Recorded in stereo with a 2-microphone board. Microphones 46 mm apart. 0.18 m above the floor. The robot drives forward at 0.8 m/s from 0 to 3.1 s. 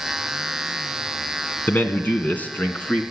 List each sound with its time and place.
1.7 s a man speaking: 45° left (ahead or behind), 1.4 m; by 3.0 s 35° left (ahead or behind), 1.8 m